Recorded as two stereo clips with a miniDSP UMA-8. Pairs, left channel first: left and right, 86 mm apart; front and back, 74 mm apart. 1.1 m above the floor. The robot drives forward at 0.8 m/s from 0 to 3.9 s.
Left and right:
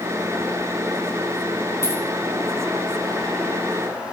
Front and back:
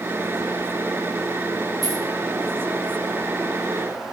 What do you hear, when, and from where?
1.8 s keys jangling: 150° left, 1.7 m